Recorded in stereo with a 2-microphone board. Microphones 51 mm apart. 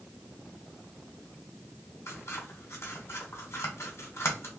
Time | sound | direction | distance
2.1 | scissors | 70° left (ahead or behind) | 1.5 m